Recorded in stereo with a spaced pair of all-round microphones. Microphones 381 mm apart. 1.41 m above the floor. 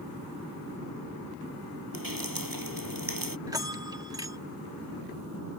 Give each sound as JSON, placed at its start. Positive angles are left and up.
{"t": 1.9, "sound": "dripping", "side_deg": -60}
{"t": 3.5, "sound": "a bell", "side_deg": -10}